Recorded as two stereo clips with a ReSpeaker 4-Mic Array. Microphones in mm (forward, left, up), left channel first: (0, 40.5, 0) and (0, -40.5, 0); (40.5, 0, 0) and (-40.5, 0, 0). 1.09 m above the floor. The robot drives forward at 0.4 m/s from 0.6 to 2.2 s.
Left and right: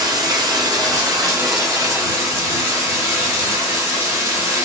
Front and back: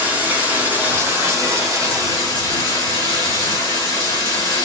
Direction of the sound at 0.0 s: 115° right.